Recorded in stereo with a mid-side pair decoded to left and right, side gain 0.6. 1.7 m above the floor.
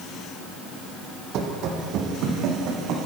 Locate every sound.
1.3 s running footsteps: 60° right, 5.5 m; by 3.0 s 65° right, 7.5 m